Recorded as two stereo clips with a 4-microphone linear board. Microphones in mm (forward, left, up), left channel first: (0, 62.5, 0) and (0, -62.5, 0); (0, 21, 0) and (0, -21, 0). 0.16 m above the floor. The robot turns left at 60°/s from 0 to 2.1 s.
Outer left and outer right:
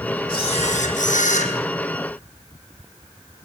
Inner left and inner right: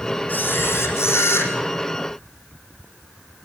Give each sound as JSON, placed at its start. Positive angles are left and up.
{"t": 0.3, "sound": "a camera shutter", "azimuth_deg": 145, "distance_m": 5.5}